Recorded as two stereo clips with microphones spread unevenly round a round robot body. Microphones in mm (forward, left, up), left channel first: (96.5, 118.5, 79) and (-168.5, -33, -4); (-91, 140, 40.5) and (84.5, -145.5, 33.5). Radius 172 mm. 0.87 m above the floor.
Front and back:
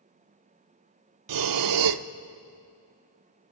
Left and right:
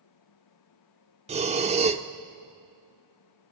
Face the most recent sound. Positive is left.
turn(degrees=-125)